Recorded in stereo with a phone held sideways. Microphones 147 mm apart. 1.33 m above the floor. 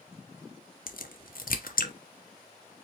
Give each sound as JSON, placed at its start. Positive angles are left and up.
{"t": 0.9, "sound": "a crack", "side_deg": 70, "distance_m": 0.8}